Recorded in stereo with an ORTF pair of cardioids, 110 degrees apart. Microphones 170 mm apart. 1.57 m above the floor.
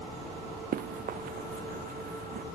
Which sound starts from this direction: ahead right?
Running footsteps, at 0.7 s.